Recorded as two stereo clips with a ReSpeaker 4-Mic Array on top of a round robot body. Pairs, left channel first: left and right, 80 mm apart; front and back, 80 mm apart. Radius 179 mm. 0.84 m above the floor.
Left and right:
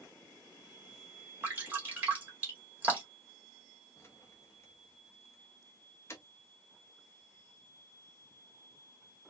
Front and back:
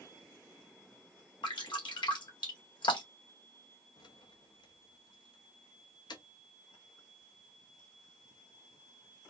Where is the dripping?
20° right, 1.9 m.